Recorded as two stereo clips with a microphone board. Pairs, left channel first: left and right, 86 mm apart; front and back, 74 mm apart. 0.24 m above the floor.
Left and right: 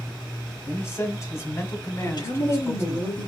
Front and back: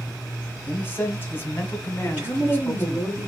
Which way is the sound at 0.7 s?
45° left.